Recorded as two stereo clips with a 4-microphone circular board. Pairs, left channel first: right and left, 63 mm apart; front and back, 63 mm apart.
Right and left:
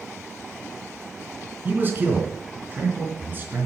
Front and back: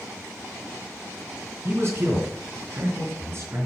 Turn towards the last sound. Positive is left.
turn(degrees=140)